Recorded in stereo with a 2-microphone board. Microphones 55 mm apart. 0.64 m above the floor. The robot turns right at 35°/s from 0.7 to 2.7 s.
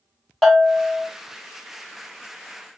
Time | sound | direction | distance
0.4 | a bell | 5° left (ahead or behind) | 0.9 m